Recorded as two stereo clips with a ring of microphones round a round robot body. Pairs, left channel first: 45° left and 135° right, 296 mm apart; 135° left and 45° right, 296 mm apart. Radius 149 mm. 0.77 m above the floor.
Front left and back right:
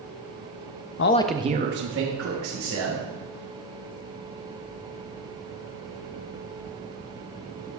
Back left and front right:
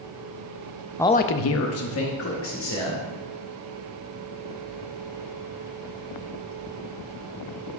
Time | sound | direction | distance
1.0 | a man speaking | 55° left | 0.5 m